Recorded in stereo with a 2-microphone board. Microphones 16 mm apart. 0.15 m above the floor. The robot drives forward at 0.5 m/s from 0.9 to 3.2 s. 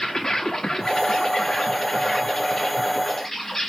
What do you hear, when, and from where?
0.0 s an insect: 40° left (ahead or behind), 1.0 m; by 3.7 s 20° left (ahead or behind), 2.0 m